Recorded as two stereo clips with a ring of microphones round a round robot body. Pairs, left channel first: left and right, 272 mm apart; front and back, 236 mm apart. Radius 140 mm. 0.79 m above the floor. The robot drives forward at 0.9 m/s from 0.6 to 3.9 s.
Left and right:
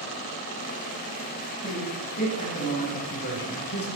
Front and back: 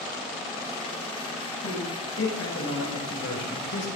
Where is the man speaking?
25° left, 6.5 m; by 3.9 s 35° left, 5 m.